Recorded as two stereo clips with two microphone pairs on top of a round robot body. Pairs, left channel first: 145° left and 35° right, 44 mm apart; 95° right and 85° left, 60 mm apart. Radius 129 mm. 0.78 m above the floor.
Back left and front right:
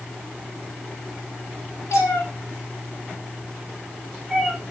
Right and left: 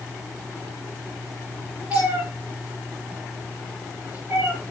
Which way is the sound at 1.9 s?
140° left.